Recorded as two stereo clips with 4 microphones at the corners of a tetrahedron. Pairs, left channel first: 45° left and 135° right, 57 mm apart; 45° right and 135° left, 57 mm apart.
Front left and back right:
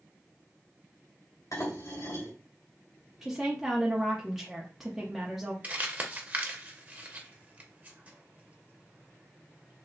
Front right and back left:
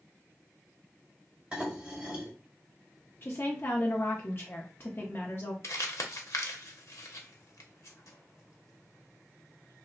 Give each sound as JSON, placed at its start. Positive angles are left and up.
{"t": 1.5, "sound": "dishes clattering", "azimuth_deg": 60, "distance_m": 1.6}
{"t": 3.2, "sound": "a woman speaking", "azimuth_deg": -55, "distance_m": 0.7}
{"t": 5.6, "sound": "crumpling", "azimuth_deg": -75, "distance_m": 0.7}